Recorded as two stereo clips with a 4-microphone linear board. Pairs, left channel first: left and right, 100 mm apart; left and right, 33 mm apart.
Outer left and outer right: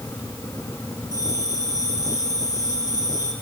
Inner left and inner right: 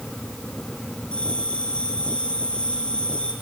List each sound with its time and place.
1.1 s a bell: 30° left (ahead or behind), 5.5 m